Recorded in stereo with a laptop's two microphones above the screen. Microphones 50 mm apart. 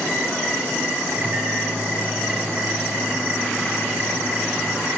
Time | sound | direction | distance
1.1 | a microwave | 60° right (ahead or behind) | 4.5 m